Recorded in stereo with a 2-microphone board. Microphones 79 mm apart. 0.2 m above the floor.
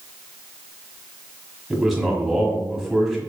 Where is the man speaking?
5° right (ahead or behind), 1.5 m.